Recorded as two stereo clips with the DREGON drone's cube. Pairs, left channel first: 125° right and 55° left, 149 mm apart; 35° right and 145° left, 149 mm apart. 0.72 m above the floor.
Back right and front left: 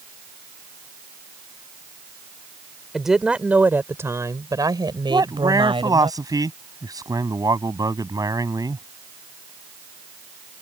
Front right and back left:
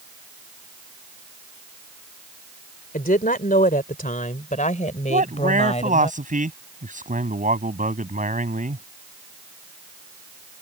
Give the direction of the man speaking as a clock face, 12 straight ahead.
8 o'clock.